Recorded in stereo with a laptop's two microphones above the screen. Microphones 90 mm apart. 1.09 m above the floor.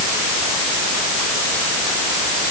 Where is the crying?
No crying in this recording.